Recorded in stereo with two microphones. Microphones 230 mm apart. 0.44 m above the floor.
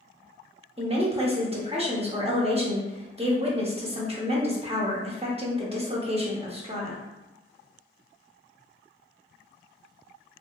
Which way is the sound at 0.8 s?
25° right (ahead or behind).